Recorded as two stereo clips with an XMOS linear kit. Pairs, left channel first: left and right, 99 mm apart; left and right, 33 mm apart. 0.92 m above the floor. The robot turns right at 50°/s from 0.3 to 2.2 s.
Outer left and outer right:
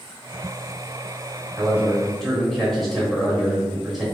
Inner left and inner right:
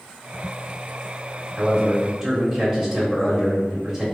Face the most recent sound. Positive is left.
turn(degrees=0)